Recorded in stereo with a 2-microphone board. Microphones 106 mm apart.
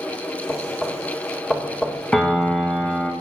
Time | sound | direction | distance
0.5 | knocking | 15° left (ahead or behind) | 1.3 m
2.1 | a piano | 10° left (ahead or behind) | 1.1 m